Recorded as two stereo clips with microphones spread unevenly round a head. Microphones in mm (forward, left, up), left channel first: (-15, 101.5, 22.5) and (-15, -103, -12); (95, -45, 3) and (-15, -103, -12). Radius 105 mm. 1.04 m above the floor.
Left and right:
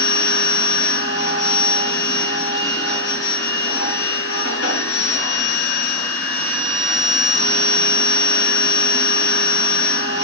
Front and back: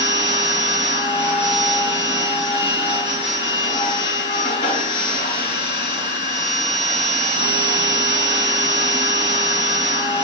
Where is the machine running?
80° left, 3 m.